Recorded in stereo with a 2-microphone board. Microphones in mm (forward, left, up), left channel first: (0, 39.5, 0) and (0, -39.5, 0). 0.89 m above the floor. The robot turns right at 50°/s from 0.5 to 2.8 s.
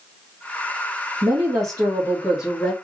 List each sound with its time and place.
1.2 s a woman speaking: 65° right, 1.6 m; by 2.7 s 10° left, 1.6 m